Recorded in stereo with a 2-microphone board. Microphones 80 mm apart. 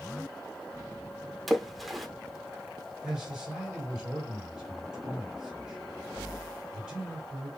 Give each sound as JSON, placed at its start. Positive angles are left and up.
{"t": 1.5, "sound": "a splash", "side_deg": 0, "distance_m": 0.7}
{"t": 3.0, "sound": "a man speaking", "side_deg": 0, "distance_m": 2.5}